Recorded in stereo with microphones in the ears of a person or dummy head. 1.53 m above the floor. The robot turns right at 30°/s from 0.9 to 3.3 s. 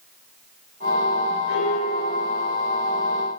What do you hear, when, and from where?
1.5 s a piano: 115° left, 7.5 m; by 2.5 s 145° left, 7.5 m